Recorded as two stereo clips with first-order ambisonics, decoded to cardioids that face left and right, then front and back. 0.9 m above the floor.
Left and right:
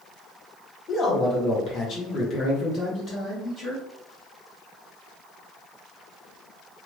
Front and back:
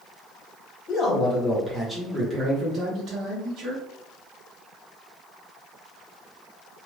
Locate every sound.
0.9 s a man speaking: 40° left, 1.2 m; by 3.8 s 155° left, 1.6 m